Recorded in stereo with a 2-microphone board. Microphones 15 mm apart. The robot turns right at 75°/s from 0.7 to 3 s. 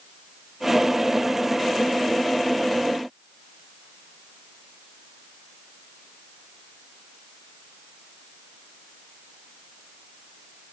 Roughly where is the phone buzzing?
No phone buzzing in this recording.